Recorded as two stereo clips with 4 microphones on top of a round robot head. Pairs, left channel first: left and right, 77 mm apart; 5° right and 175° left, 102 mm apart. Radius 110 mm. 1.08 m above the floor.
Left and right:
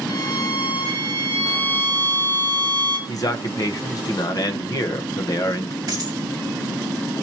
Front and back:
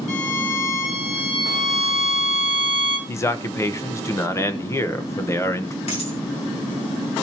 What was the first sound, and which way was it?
A violin, 15° left.